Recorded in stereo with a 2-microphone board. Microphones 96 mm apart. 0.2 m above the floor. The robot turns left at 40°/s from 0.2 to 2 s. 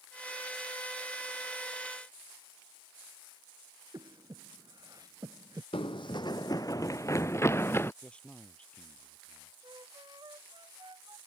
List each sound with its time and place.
3.9 s breathing: 40° right (ahead or behind)
5.7 s running footsteps: 70° left (ahead or behind); by 7.9 s 25° left (ahead or behind)
8.0 s a man speaking: 10° left (ahead or behind)
9.6 s a flute: 50° right (ahead or behind)